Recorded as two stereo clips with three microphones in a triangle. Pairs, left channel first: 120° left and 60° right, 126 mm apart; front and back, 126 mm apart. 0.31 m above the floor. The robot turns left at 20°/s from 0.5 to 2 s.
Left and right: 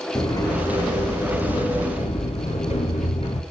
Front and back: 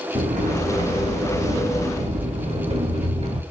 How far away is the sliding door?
About 1.6 m.